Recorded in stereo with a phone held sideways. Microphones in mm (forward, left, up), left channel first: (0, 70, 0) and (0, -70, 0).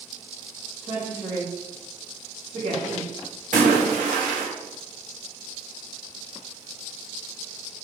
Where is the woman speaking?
65° right (ahead or behind), 1.9 m.